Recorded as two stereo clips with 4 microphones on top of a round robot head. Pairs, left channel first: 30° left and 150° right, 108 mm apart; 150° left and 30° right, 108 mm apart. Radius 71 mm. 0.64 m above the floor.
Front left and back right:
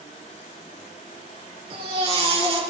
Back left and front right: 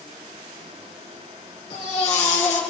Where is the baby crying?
175° left, 3.5 m.